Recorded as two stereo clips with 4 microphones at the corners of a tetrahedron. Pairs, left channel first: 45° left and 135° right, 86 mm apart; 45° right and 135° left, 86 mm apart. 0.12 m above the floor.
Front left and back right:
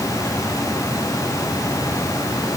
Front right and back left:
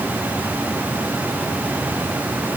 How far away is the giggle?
I don't hear a giggle.